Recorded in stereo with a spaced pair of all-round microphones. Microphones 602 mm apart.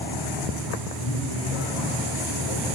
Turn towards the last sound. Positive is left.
turn(degrees=85)